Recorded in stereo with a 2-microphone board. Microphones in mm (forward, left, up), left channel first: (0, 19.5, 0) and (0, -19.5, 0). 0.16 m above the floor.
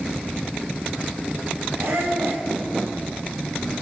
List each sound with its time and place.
1.8 s a squeak: 80° right, 6.5 m